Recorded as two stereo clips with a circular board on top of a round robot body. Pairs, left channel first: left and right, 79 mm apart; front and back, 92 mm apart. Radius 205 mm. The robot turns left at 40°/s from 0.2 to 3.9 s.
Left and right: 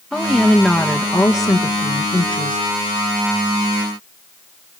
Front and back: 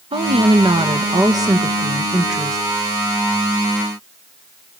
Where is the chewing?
I don't hear chewing.